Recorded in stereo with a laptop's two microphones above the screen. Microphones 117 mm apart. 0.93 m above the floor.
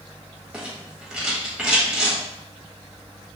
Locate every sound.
0.5 s a rattle: 10° right (ahead or behind), 1.2 m